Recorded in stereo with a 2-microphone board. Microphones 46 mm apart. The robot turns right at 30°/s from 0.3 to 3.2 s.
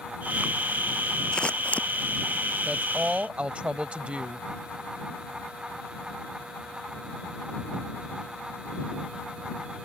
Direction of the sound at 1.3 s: 20° left (ahead or behind).